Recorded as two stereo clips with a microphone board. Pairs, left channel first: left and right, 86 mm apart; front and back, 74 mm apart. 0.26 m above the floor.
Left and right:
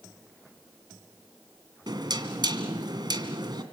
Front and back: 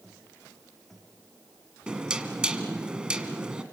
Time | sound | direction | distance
1.9 | knocking | 105° right | 2 m